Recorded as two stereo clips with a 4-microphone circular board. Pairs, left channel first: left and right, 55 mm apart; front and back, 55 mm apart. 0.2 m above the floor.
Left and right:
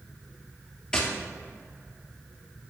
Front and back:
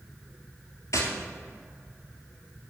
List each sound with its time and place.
0.9 s tapping: 20° left, 2 m